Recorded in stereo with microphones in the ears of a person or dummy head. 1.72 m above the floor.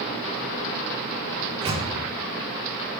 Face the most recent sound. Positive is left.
turn(degrees=-25)  # may be behind; listen again after turning